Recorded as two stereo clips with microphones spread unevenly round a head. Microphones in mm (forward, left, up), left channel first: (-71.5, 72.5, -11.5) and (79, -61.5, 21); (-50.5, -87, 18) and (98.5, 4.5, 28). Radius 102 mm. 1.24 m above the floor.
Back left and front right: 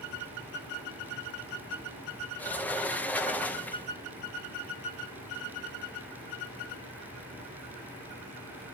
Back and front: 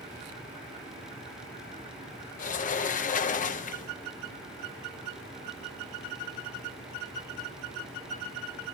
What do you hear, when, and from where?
2.4 s a sliding door: 150° right, 0.6 m